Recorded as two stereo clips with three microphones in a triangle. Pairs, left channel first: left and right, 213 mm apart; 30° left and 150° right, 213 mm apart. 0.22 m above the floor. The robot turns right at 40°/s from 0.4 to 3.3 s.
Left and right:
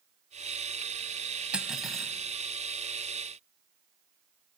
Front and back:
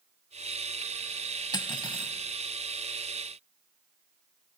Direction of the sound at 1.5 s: 15° right.